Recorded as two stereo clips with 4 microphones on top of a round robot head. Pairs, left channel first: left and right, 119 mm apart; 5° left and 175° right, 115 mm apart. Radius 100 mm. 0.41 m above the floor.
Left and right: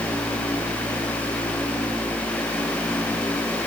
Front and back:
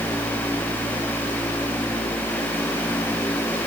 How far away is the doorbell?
I don't hear a doorbell.